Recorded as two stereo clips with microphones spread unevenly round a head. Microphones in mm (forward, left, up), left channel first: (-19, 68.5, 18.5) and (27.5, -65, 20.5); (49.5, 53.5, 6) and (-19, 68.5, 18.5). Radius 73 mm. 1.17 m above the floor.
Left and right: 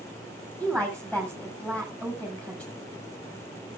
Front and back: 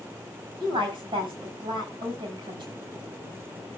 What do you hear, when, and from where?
0.6 s a woman speaking: 170° right, 6 m